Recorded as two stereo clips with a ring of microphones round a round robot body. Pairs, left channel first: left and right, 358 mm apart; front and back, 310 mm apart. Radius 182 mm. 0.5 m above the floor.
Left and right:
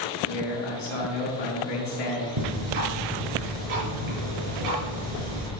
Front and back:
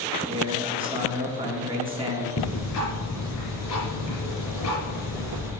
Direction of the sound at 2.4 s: 50° right.